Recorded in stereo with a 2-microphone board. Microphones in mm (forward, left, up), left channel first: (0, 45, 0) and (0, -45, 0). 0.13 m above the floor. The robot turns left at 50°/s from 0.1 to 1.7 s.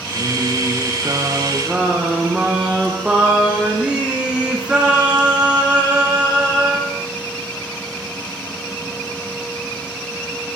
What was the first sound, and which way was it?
Singing, 90° right.